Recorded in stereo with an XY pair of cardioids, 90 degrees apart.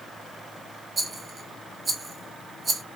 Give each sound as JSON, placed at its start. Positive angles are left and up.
{"t": 1.0, "sound": "a rattle", "azimuth_deg": -45, "distance_m": 0.9}